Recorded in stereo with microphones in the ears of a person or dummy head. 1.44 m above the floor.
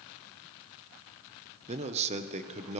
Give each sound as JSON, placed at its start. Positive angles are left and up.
{"t": 1.7, "sound": "a man speaking", "side_deg": -35, "distance_m": 1.0}